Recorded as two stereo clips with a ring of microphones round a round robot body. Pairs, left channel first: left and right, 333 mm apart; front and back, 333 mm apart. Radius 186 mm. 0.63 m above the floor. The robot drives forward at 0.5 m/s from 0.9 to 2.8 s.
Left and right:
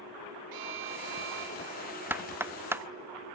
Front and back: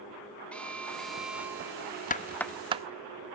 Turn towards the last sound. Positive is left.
turn(degrees=-160)